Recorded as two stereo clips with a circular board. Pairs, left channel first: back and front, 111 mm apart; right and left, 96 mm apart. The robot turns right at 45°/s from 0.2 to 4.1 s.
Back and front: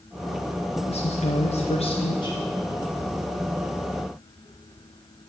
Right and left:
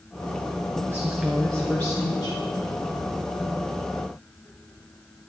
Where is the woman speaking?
155° left, 0.9 m; by 2.4 s 140° right, 0.9 m.